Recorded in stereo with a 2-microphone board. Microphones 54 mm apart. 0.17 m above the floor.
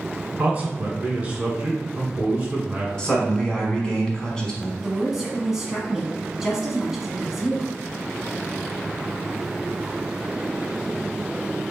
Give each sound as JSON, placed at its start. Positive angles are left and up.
{"t": 0.4, "sound": "a man speaking", "side_deg": -25, "distance_m": 1.3}
{"t": 3.0, "sound": "a man speaking", "side_deg": 15, "distance_m": 1.1}
{"t": 4.8, "sound": "a woman speaking", "side_deg": -10, "distance_m": 1.1}